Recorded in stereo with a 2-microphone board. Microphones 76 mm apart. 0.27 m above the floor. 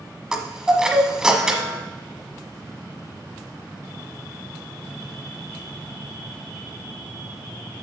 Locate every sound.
0.3 s a chime: 10° right (ahead or behind), 1.1 m